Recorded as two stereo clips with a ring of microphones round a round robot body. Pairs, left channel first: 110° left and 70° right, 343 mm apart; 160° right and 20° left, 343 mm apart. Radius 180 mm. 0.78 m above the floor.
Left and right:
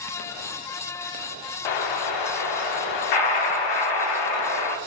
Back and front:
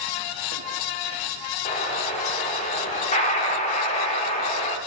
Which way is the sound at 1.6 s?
130° left.